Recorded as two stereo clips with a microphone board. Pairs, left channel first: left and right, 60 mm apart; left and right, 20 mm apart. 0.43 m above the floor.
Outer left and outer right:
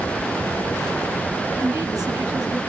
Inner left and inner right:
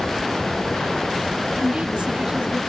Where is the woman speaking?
75° right (ahead or behind), 6 m.